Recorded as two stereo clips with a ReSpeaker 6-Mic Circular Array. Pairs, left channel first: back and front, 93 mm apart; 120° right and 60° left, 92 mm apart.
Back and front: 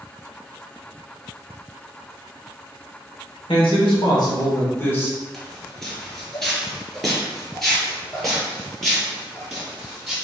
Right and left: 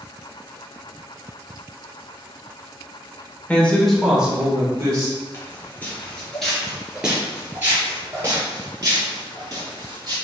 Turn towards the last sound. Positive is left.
turn(degrees=90)